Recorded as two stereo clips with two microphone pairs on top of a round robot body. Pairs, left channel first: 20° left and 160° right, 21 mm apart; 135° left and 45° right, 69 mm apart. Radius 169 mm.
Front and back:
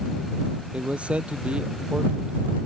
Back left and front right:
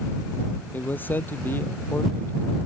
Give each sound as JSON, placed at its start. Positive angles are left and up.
{"t": 0.7, "sound": "a man speaking", "azimuth_deg": -160}